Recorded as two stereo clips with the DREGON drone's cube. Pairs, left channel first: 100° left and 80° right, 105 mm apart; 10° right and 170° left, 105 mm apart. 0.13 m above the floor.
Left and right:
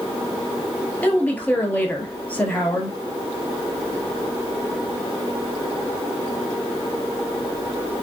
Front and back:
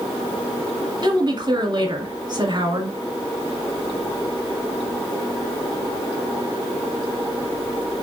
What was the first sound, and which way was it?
A woman speaking, 170° left.